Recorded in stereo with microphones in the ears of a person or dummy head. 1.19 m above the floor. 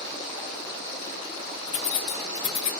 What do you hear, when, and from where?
1.7 s keys jangling: 30° left (ahead or behind), 0.5 m